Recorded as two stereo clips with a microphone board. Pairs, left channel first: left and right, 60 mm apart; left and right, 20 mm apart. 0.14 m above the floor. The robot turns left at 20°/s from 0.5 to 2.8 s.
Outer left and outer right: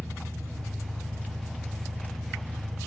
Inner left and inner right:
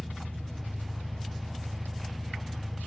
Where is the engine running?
40° left, 0.9 m; by 2.9 s 5° right, 0.9 m.